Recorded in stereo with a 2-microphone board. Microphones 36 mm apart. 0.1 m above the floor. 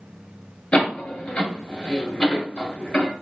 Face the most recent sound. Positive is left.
turn(degrees=30)  # may be behind; listen again after turning